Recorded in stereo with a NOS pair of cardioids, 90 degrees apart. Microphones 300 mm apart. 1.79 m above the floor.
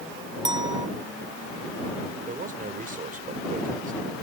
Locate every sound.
0.5 s a clink: 15° right
2.3 s a man speaking: 30° right